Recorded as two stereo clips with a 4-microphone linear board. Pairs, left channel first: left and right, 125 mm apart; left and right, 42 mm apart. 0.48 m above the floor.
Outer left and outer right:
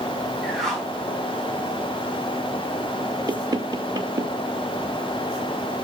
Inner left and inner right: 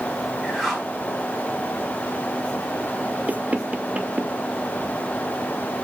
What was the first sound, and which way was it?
A whoosh, 5° left (ahead or behind).